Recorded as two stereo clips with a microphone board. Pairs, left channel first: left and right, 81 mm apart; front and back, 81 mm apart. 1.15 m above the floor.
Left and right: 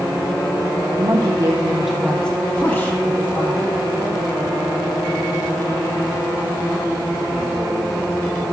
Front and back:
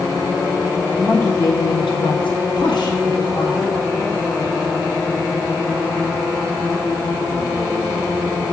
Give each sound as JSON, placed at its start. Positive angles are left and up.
{"t": 1.0, "sound": "a woman speaking", "azimuth_deg": -80, "distance_m": 0.7}